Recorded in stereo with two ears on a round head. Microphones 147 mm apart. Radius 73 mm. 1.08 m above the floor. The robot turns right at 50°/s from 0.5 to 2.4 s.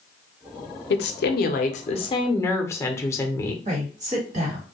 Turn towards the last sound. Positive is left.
turn(degrees=-45)  # may be behind; listen again after turning